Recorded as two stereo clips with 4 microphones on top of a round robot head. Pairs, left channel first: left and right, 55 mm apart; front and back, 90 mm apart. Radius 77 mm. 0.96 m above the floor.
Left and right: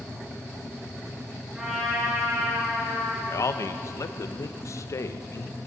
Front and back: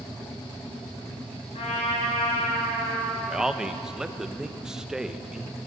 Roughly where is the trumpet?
Ahead.